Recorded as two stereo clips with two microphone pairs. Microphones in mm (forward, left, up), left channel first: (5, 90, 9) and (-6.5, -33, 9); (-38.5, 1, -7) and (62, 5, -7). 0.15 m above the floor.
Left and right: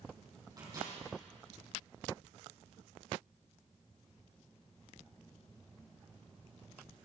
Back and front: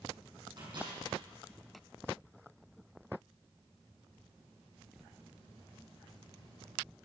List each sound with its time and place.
0.6 s a microwave: 35° right, 5.5 m